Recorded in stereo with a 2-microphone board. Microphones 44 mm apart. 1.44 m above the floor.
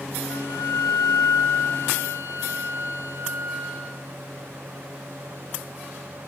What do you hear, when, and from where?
0.3 s a flute: 80° left, 4 m